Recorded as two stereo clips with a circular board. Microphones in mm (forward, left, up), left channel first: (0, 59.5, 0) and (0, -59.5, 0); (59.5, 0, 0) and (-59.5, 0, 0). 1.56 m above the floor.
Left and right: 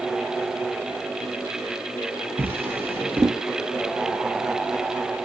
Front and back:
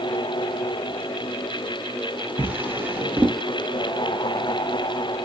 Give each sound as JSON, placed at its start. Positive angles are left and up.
{"t": 2.4, "sound": "a drawer", "azimuth_deg": -130, "distance_m": 0.7}